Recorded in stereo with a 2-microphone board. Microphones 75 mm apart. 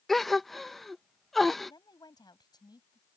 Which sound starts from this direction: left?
A woman speaking, at 1.7 s.